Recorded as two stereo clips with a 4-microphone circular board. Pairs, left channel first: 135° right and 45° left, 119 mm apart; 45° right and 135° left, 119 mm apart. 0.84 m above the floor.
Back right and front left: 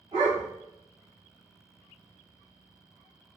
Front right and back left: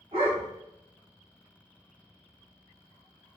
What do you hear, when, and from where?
0.1 s a dog barking: 90° left, 2 m